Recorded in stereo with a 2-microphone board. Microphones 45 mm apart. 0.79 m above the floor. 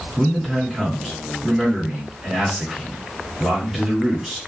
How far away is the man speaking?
About 1.5 m.